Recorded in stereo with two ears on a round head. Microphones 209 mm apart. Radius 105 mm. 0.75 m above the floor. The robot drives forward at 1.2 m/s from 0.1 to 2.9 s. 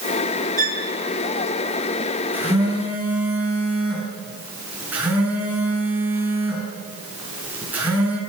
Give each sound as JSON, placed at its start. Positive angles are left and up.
{"t": 0.6, "sound": "a violin", "side_deg": -35, "distance_m": 1.8}
{"t": 2.3, "sound": "a phone buzzing", "side_deg": -10, "distance_m": 6.0}